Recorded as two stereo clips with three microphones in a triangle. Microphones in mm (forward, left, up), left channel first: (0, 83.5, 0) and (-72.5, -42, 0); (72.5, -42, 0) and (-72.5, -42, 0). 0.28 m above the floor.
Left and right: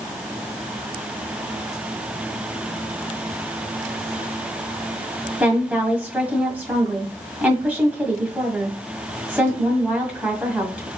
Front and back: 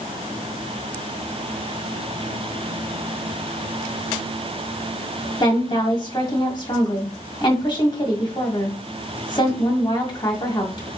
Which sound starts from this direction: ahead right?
A woman speaking, at 5.4 s.